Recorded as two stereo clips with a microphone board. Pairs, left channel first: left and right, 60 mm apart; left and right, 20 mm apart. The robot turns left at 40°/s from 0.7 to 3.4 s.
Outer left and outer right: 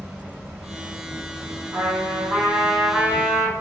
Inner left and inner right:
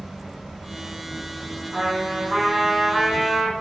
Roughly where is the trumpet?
Behind right.